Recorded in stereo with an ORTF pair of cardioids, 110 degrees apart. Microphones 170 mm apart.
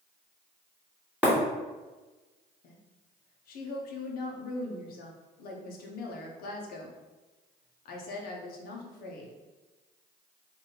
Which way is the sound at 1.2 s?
10° right.